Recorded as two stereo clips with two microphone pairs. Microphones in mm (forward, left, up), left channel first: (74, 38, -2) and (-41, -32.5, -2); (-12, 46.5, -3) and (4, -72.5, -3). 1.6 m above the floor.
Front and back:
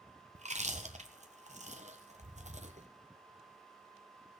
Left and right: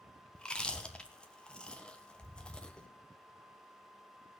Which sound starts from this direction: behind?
Chewing, at 0.3 s.